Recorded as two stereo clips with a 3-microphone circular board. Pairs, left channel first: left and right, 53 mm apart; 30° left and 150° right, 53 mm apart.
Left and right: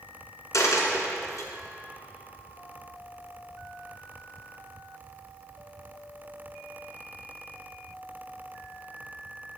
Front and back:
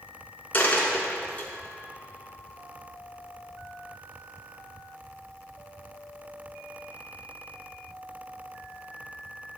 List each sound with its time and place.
0.5 s a dropped coin: 90° left, 2 m